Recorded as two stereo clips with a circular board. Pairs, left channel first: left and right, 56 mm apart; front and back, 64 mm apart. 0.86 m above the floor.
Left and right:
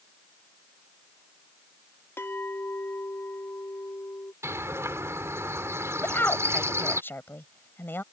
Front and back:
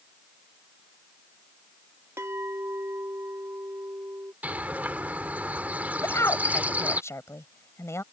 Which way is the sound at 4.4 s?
115° right.